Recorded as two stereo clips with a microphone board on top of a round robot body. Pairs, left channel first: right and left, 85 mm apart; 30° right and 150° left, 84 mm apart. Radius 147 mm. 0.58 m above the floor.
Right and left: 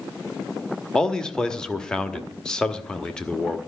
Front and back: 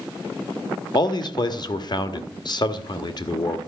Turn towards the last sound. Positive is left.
turn(degrees=-10)